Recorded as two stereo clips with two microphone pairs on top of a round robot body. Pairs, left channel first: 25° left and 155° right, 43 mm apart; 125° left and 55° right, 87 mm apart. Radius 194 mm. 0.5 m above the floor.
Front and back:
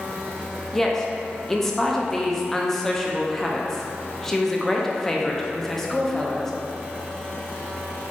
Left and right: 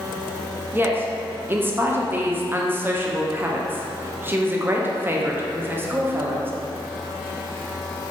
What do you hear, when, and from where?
0.7 s a woman speaking: 40° right, 0.9 m